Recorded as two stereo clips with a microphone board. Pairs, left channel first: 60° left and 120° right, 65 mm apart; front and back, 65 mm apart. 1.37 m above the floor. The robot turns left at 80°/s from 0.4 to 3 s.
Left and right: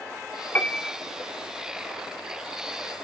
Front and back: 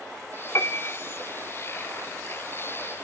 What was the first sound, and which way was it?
A piano, 10° left.